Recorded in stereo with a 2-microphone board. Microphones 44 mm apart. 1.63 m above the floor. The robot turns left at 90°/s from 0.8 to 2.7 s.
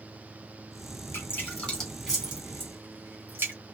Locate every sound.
1.1 s dripping: 65° left (ahead or behind), 2.5 m; by 3.5 s 60° right (ahead or behind), 2.5 m